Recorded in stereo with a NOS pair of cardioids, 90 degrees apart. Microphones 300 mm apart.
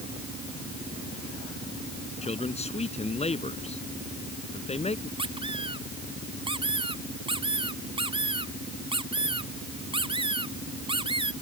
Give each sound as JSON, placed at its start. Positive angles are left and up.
{"t": 2.2, "sound": "a man speaking", "azimuth_deg": 20}
{"t": 5.2, "sound": "a squeak", "azimuth_deg": -20}